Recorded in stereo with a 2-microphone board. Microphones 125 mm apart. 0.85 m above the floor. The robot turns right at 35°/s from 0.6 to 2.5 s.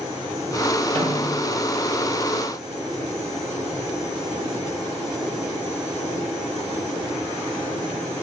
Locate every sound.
0.9 s a snare drum: 45° right (ahead or behind), 7 m; by 1.5 s 25° right (ahead or behind), 7 m